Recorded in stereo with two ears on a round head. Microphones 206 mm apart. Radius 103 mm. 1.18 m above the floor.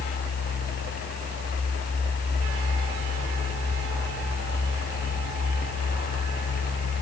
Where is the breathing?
I don't hear breathing.